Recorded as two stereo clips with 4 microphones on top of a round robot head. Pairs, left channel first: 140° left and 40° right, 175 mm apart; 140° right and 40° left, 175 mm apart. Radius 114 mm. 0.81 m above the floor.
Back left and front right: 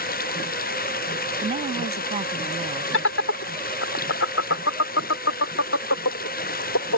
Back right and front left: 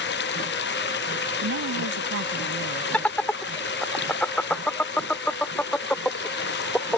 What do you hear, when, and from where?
0.0 s running water: 175° right
1.4 s a woman speaking: 20° left
2.9 s laughter: 135° left